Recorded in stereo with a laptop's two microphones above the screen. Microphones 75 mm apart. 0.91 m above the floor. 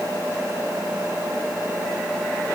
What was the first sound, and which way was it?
Only background noise.